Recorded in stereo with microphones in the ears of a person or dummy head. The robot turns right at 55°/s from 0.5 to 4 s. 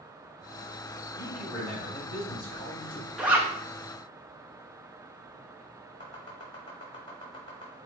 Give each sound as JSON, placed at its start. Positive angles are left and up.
{"t": 1.2, "sound": "a man speaking", "azimuth_deg": 20, "distance_m": 1.9}
{"t": 3.2, "sound": "a zipper", "side_deg": -5, "distance_m": 0.7}
{"t": 6.0, "sound": "chopping", "side_deg": 20, "distance_m": 1.1}